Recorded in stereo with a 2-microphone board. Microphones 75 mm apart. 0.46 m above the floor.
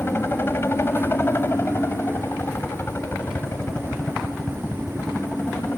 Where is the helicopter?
30° left (ahead or behind).